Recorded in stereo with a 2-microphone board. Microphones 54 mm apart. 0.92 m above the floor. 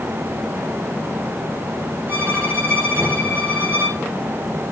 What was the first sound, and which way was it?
A violin, 45° right (ahead or behind).